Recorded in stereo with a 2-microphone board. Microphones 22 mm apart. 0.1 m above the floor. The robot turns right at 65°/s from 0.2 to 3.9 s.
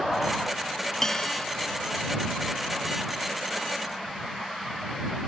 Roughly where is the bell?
Ahead.